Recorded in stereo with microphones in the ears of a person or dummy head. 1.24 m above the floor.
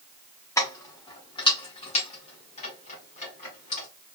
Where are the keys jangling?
20° left (ahead or behind), 1.6 m; by 3.9 s 50° left (ahead or behind), 3 m.